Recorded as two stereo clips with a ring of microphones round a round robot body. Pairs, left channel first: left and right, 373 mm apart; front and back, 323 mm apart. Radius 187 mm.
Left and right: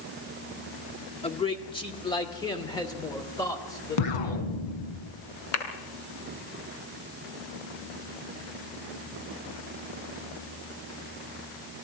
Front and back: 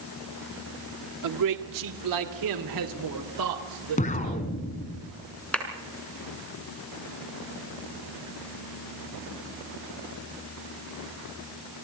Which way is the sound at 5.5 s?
85° left.